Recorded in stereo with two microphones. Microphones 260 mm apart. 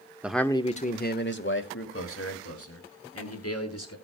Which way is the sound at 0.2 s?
5° right (ahead or behind).